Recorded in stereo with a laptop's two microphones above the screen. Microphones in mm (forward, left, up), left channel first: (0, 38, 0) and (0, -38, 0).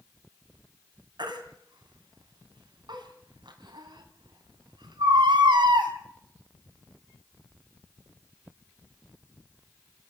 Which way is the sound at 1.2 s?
80° right.